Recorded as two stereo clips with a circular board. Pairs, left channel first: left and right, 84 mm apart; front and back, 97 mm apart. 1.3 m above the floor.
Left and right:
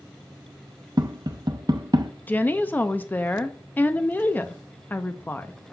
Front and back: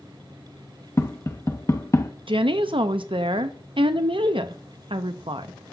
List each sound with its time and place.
1.0 s tapping: 60° right, 0.7 m
2.3 s a woman speaking: 155° left, 0.6 m